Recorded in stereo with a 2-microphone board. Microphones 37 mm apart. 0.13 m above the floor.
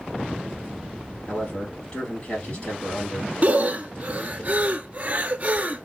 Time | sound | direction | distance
1.3 | a man speaking | 30° left (ahead or behind) | 3.5 m
3.4 | breathing | 40° right (ahead or behind) | 0.5 m